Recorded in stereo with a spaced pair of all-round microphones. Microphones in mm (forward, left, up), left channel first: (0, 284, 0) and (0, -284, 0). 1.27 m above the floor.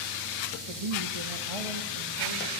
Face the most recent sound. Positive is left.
turn(degrees=-65)  # may be behind; listen again after turning